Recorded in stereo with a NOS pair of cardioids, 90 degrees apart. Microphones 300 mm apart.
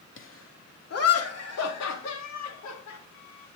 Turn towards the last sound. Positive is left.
turn(degrees=70)